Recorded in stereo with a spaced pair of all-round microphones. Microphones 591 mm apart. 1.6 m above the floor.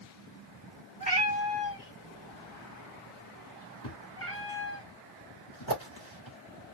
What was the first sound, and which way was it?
A cat meowing, 15° left (ahead or behind).